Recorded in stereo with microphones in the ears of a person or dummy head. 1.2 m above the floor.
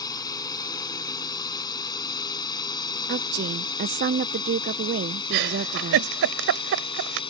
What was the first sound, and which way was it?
A drone, 15° left (ahead or behind).